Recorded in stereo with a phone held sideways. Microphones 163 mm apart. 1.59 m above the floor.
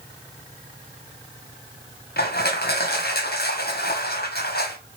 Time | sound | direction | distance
2.2 | crushing | 75° left (ahead or behind) | 1.1 m